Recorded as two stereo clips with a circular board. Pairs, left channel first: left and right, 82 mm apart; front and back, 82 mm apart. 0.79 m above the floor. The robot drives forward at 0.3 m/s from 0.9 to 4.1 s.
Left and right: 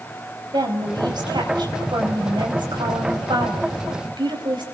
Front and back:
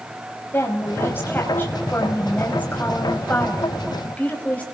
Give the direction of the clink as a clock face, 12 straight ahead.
No clink in this recording.